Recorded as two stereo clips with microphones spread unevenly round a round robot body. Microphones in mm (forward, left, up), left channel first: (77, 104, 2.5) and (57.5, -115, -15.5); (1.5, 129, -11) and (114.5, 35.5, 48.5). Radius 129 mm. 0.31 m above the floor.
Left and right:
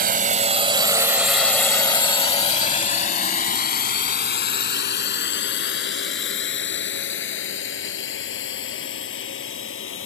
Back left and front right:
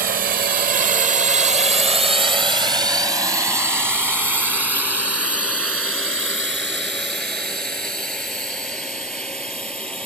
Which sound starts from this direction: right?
A drone, at 0.0 s.